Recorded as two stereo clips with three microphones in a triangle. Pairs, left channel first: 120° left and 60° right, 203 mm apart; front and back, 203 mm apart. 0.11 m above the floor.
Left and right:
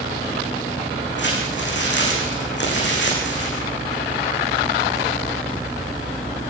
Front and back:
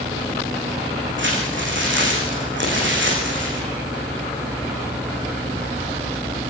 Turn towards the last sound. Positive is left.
turn(degrees=150)